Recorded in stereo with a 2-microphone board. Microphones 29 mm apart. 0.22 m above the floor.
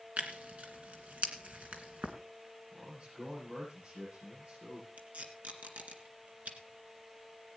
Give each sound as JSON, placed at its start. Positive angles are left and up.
{"t": 0.2, "sound": "tearing paper", "side_deg": -60, "distance_m": 2.0}
{"t": 2.7, "sound": "a man speaking", "side_deg": -55, "distance_m": 8.0}
{"t": 5.0, "sound": "tape being pulled", "side_deg": -65, "distance_m": 2.0}